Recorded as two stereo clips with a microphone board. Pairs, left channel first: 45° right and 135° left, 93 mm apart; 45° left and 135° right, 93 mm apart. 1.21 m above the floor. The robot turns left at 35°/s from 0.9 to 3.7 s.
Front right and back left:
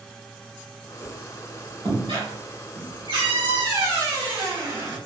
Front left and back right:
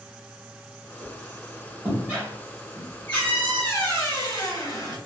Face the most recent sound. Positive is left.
turn(degrees=95)